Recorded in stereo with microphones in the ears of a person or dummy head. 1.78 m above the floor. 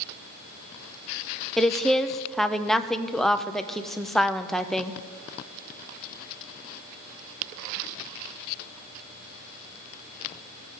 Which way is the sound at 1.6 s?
Centre (ahead or behind).